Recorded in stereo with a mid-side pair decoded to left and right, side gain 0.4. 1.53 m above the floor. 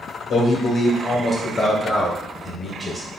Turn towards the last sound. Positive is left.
turn(degrees=10)